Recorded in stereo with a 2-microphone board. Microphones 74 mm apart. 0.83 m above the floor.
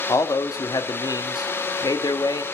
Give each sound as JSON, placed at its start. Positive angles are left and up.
{"t": 0.1, "sound": "a man speaking", "side_deg": 55, "distance_m": 1.3}